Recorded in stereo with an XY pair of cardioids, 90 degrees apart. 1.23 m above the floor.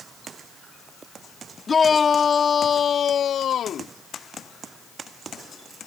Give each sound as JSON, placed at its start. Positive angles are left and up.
{"t": 1.7, "sound": "a shout", "azimuth_deg": 40}